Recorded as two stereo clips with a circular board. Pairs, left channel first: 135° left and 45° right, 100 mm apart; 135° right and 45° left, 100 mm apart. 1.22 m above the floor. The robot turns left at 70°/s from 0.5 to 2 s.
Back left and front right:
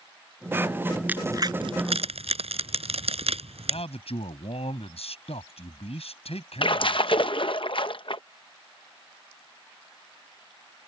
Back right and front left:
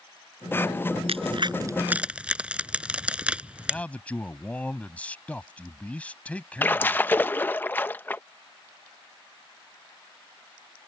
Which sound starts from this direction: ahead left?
A crack, at 1.1 s.